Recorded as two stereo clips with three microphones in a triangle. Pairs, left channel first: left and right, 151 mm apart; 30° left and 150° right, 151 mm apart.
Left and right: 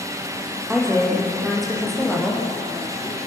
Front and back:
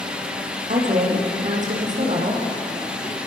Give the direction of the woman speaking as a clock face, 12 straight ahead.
6 o'clock.